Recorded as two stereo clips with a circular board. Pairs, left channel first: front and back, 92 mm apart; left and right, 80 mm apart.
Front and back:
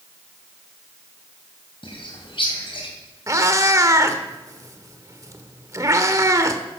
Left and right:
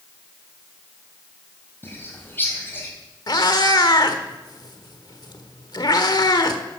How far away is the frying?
No frying in this recording.